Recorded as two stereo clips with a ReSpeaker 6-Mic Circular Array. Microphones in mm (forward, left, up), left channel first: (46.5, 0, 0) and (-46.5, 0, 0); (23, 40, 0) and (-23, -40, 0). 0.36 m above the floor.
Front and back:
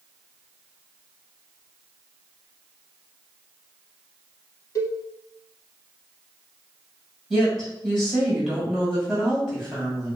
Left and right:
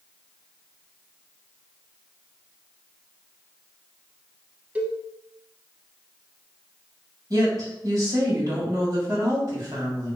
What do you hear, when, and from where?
4.8 s a cowbell: 45° right, 0.6 m
7.3 s a woman speaking: 90° right, 1.7 m